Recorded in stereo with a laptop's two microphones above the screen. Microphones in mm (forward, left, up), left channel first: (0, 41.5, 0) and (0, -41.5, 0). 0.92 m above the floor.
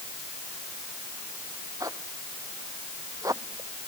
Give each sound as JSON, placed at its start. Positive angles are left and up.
{"t": 1.8, "sound": "a zipper", "side_deg": -45}